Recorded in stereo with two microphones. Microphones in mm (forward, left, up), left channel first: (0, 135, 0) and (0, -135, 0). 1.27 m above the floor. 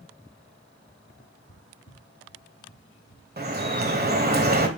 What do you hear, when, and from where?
1.1 s footsteps: 40° left (ahead or behind), 1.6 m; by 3.3 s 50° left (ahead or behind), 2.5 m
3.4 s dripping: 35° right (ahead or behind), 1.5 m